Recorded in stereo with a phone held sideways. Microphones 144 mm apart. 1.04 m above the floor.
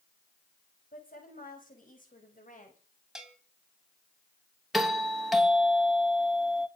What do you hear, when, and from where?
0.9 s a woman speaking: 75° left (ahead or behind), 7 m; by 2.8 s 65° left (ahead or behind), 6.5 m
3.1 s a bell: 5° right (ahead or behind), 3 m
4.7 s a doorbell: centre (ahead or behind), 2.5 m